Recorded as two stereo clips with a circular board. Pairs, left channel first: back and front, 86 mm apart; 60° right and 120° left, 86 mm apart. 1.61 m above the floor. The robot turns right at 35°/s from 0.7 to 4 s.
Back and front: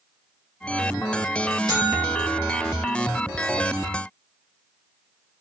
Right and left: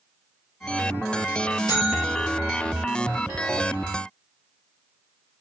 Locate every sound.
1.7 s a buzzer: 30° right, 2.5 m; by 2.9 s 10° left, 2.5 m